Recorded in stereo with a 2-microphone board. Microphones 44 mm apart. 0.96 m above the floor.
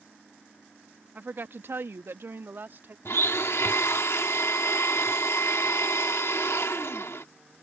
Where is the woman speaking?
40° right (ahead or behind); by 3.0 s 50° right (ahead or behind).